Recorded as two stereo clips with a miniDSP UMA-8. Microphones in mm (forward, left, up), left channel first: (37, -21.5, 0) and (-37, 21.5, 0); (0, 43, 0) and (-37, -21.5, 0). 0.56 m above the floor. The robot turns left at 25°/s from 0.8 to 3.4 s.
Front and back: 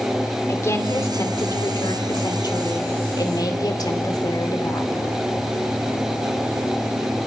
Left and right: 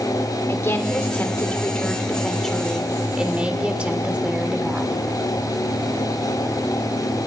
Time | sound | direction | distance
0.5 | a woman speaking | 15° left | 1.7 m